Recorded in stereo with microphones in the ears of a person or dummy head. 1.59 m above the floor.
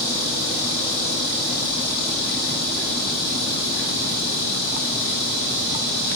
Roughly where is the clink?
I don't hear a clink.